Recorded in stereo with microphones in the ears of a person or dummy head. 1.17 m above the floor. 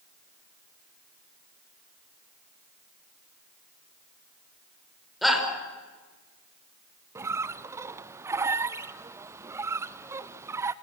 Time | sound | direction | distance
5.2 | a shout | centre (ahead or behind) | 5.5 m
7.2 | a squeak | 20° right (ahead or behind) | 0.6 m